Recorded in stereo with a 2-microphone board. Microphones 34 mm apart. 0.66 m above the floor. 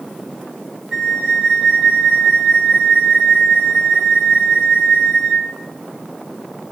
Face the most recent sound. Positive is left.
turn(degrees=-20)  # may be behind; listen again after turning